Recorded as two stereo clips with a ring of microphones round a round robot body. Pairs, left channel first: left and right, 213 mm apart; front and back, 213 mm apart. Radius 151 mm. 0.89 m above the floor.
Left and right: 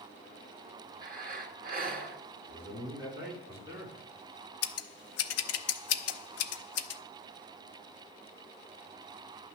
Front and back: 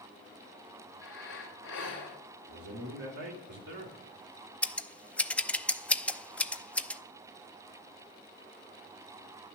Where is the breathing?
45° right, 2 m.